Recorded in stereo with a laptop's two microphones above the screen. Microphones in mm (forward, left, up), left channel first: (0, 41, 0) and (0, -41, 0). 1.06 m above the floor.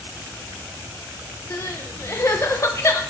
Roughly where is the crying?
Left.